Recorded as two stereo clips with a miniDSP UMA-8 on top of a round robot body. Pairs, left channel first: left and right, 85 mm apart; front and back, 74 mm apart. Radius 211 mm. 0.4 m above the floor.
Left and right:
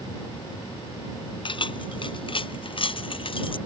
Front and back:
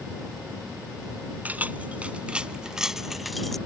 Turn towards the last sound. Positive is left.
turn(degrees=85)